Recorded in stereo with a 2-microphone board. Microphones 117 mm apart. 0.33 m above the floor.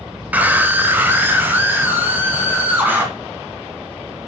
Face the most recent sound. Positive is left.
turn(degrees=-15)  # may be behind; listen again after turning